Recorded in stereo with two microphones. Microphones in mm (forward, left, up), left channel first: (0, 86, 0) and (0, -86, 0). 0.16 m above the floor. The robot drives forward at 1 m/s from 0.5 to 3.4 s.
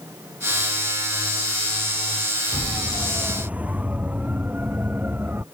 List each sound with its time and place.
2.5 s a siren: 5° right (ahead or behind); by 5.4 s 10° right (ahead or behind)